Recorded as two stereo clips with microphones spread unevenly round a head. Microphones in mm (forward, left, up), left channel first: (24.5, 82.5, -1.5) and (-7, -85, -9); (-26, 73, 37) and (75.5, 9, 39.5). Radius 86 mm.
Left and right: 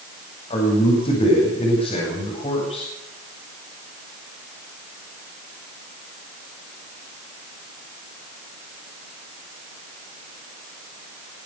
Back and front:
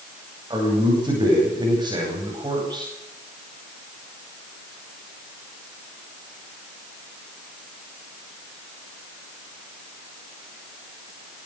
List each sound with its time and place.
0.5 s a man speaking: 25° left, 9.5 m